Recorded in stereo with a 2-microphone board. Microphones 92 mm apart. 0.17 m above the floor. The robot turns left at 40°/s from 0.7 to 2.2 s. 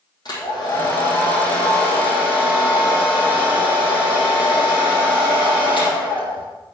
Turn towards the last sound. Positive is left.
turn(degrees=70)